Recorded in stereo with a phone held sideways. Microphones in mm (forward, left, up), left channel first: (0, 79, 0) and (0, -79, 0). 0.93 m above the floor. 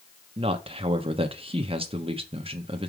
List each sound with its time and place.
0.4 s a man speaking: 35° right (ahead or behind), 1.1 m